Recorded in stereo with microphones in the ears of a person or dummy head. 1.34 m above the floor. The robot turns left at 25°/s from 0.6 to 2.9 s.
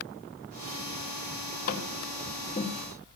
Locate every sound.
1.7 s tapping: 55° left (ahead or behind), 3.5 m; by 3.1 s 25° left (ahead or behind), 3.5 m